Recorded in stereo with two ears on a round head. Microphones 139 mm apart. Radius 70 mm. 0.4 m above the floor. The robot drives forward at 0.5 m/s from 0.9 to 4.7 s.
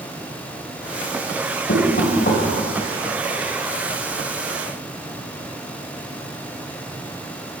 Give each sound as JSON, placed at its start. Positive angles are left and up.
{"t": 1.7, "sound": "knocking", "side_deg": 55, "distance_m": 1.8}